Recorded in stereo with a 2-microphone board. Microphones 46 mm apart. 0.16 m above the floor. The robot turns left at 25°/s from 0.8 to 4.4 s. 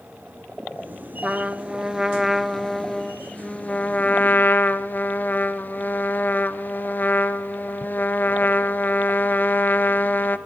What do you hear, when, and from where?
1.2 s a trumpet: 150° right, 1.0 m; by 10.4 s 130° left, 1.0 m